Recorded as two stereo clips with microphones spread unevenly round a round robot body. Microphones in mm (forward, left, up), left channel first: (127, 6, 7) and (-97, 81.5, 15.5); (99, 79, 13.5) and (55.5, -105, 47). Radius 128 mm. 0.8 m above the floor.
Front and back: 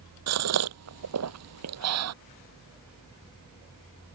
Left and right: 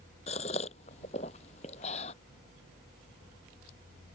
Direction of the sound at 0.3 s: 145° left.